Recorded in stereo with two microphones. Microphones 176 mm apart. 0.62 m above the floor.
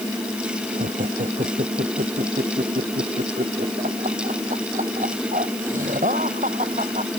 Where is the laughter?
45° right (ahead or behind).